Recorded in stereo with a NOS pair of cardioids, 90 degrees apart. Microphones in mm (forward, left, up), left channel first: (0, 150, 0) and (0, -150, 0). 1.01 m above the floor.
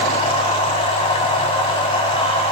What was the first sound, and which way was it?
A machine running, 20° left.